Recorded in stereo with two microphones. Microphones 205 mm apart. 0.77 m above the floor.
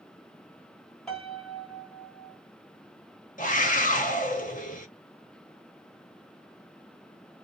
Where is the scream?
40° left (ahead or behind), 0.6 m.